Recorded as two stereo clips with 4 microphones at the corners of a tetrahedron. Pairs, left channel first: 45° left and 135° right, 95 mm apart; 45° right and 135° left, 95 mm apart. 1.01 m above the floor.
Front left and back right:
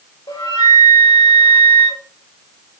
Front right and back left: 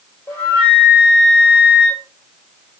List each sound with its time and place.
0.3 s a flute: 25° left, 2.5 m